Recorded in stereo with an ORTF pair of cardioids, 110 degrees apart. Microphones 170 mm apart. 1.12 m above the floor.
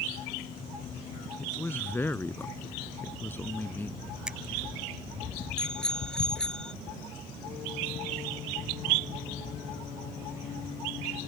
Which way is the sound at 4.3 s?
5° right.